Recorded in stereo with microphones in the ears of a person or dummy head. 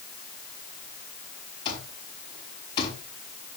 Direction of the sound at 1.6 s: 25° left (ahead or behind).